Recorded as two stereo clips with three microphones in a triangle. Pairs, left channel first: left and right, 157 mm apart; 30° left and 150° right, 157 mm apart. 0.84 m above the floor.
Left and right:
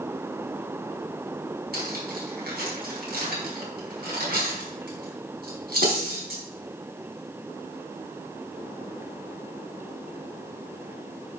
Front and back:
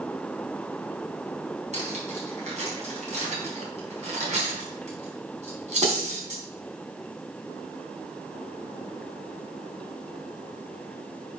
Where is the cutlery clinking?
105° right, 4 m.